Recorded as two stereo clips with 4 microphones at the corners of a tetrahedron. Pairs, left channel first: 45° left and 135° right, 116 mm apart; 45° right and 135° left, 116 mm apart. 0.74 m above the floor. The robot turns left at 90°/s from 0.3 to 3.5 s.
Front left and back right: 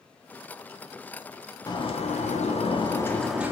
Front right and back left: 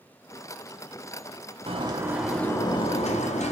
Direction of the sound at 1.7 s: 100° left.